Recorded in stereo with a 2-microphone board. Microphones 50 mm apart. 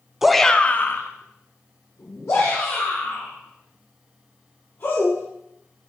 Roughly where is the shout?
Centre.